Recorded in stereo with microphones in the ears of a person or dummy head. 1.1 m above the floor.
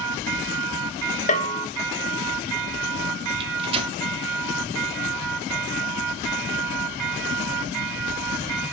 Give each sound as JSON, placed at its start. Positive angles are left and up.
{"t": 1.3, "sound": "a bell", "side_deg": 40, "distance_m": 1.5}
{"t": 3.4, "sound": "a microwave", "side_deg": -30, "distance_m": 1.2}